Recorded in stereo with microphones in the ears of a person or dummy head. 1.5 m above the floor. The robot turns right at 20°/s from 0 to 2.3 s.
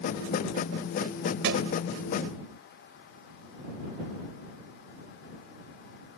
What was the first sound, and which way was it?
A thud, 65° right (ahead or behind).